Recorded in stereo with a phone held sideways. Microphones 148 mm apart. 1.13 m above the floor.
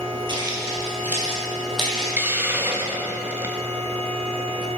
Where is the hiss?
15° right (ahead or behind), 0.6 m.